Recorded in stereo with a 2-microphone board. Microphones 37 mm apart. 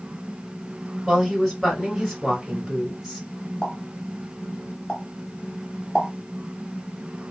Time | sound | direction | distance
1.1 | a woman speaking | centre (ahead or behind) | 2 m
3.6 | a pop | 15° left (ahead or behind) | 0.9 m